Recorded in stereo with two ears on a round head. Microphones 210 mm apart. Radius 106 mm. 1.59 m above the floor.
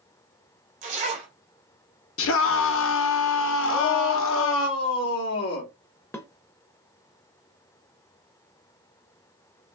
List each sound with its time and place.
0.8 s a zipper: 35° right (ahead or behind), 1.8 m
2.2 s a scream: 60° left (ahead or behind), 1.2 m
3.7 s a shout: 70° left (ahead or behind), 1.5 m
6.1 s dishes clattering: 10° left (ahead or behind), 1.0 m